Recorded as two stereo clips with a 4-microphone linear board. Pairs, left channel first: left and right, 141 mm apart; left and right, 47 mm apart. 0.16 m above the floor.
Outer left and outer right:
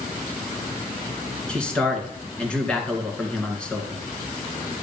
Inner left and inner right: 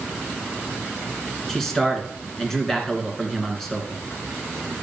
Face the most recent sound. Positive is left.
turn(degrees=10)  # may be behind; listen again after turning